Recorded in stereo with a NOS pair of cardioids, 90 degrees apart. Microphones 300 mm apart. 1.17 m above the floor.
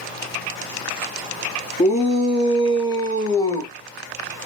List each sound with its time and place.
1.8 s a shout: 20° left, 2.5 m; by 3.7 s 10° left, 1.5 m